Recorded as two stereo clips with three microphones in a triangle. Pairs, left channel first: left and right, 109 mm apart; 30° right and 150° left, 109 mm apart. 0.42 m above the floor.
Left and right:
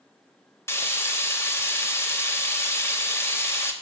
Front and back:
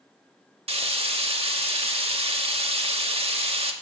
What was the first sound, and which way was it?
Frying, 155° left.